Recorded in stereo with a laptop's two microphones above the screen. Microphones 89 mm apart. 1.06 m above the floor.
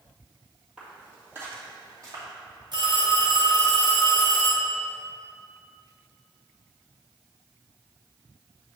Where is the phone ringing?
55° right (ahead or behind), 1.7 m.